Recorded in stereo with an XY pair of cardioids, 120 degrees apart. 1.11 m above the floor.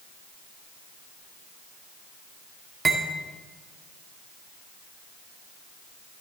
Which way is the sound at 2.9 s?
25° right.